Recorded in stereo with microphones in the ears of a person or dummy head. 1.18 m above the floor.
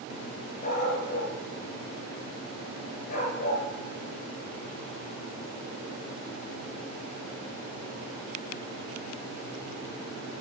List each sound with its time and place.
0.6 s a dog barking: 45° left (ahead or behind), 6.5 m